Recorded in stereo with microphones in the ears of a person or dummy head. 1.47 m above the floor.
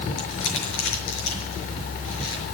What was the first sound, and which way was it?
Crumpling, 75° left (ahead or behind).